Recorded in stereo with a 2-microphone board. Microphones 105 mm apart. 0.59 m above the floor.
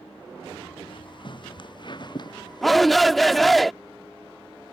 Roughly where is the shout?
Centre.